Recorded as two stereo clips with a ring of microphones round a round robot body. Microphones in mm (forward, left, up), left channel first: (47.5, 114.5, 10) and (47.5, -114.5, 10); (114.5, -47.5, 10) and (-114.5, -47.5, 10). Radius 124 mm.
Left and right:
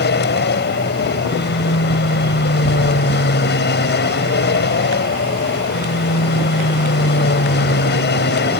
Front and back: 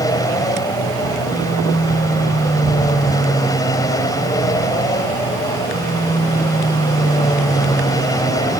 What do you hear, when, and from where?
0.0 s an aircraft: 70° left